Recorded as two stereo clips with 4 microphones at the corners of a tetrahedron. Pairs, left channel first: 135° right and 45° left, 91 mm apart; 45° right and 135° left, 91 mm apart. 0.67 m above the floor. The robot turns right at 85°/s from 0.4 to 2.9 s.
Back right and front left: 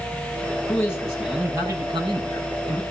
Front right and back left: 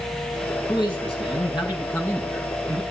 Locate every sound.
0.7 s a man speaking: 85° right, 7 m; by 2.8 s 95° left, 7 m